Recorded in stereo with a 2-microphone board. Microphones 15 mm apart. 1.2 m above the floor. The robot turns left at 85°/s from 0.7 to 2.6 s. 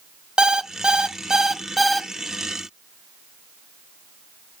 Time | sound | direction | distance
0.4 | an alarm clock | 85° right | 0.6 m